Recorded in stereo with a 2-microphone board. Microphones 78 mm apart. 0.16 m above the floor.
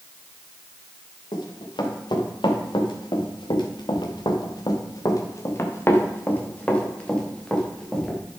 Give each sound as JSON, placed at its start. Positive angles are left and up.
{"t": 1.3, "sound": "running footsteps", "side_deg": 70, "distance_m": 3.5}